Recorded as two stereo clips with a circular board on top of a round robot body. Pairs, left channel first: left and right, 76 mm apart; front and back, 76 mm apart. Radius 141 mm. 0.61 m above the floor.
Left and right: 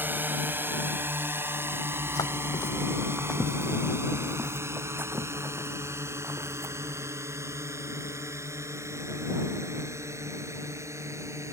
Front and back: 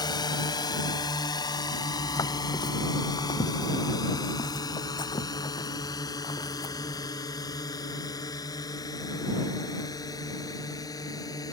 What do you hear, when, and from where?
0.0 s a drone: 25° right; by 11.5 s 40° right
1.9 s footsteps: 55° left; by 7.2 s 40° right